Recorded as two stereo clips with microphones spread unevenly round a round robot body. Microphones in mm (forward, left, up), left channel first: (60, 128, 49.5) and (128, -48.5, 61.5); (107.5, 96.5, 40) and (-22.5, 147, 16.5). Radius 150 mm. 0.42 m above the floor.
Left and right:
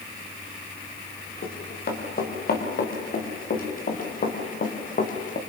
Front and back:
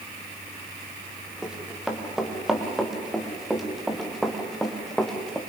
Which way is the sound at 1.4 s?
70° left.